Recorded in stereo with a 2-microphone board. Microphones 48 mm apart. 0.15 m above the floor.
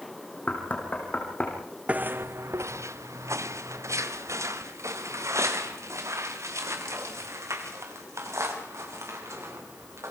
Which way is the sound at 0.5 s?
30° left (ahead or behind).